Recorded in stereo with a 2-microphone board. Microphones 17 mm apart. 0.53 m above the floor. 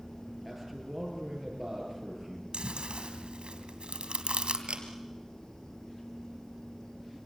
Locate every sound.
0.5 s a man speaking: 5° right (ahead or behind), 9 m
2.5 s chewing: 80° right, 3 m
4.7 s a camera shutter: 85° right, 3.5 m